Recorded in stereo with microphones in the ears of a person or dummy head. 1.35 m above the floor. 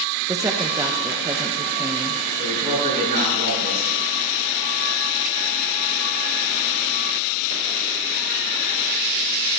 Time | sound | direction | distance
0.3 | a woman speaking | 10° right (ahead or behind) | 0.8 m
2.4 | a man speaking | 40° right (ahead or behind) | 6.5 m